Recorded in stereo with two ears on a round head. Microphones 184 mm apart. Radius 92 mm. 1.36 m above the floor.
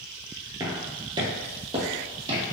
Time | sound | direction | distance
0.6 | footsteps | 15° right (ahead or behind) | 1.3 m